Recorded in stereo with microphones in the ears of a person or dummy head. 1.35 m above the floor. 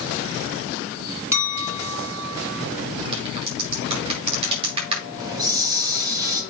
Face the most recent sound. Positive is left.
turn(degrees=-20)  # may be behind; listen again after turning